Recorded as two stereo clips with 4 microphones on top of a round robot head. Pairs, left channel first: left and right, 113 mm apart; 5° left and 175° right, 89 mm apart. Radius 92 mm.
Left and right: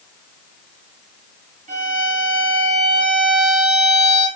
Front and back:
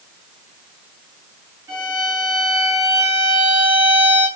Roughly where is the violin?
Right.